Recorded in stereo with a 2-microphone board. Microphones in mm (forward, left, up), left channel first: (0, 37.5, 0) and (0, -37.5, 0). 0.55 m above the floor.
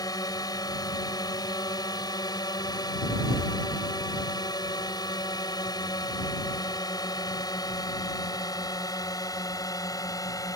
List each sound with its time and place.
0.0 s a drone: 60° left (ahead or behind); by 10.6 s 50° left (ahead or behind)